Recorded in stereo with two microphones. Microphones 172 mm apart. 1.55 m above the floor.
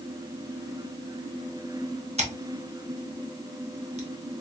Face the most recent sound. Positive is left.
turn(degrees=-40)  # may be behind; listen again after turning